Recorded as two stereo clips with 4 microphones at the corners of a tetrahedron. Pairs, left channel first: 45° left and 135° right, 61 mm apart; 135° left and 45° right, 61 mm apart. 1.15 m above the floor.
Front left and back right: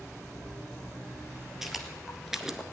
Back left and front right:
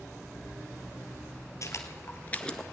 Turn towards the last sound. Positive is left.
turn(degrees=-145)